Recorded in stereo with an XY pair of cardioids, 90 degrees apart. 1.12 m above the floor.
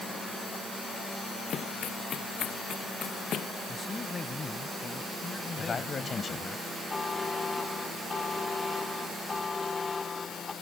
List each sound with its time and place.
1.5 s running footsteps: 60° left; by 3.5 s 70° left
3.7 s a man speaking: 30° left
5.6 s a man speaking: 45° left
6.9 s a buzzer: 30° left